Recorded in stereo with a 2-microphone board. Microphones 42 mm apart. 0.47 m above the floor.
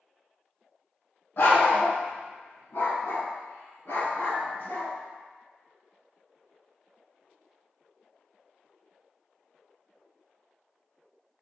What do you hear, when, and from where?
1.4 s a dog barking: 60° left (ahead or behind), 0.9 m; by 4.9 s 65° left (ahead or behind), 2.5 m